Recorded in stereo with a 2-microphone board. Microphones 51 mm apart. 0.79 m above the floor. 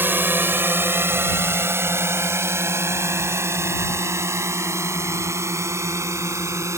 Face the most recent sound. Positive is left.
turn(degrees=-70)  # may be behind; listen again after turning